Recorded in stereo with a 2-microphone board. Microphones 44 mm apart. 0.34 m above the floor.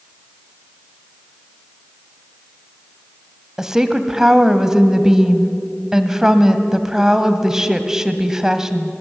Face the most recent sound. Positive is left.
turn(degrees=-10)  # may be behind; listen again after turning